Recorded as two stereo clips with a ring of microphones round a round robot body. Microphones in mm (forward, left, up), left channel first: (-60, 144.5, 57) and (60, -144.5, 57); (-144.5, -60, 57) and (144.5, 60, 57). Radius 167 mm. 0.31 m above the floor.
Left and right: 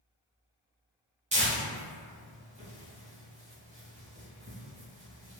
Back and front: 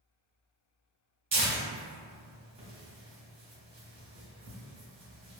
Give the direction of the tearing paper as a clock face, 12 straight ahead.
1 o'clock.